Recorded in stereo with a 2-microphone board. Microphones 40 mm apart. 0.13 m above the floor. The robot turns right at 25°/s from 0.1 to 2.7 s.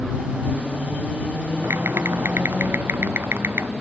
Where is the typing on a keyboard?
85° right; by 3.7 s 65° right (ahead or behind).